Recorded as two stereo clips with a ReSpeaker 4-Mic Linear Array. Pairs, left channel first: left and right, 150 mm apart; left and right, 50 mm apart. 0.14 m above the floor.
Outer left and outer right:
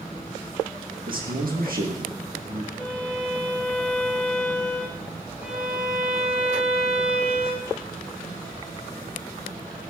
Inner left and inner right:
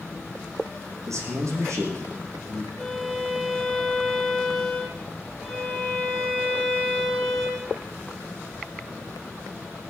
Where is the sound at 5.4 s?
10° right (ahead or behind), 8.5 m.